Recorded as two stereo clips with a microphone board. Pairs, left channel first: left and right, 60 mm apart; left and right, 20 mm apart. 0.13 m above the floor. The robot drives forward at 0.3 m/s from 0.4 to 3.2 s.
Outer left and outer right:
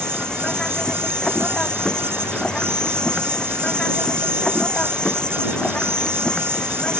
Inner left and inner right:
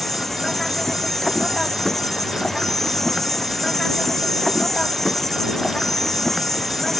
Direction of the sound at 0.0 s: 15° left (ahead or behind).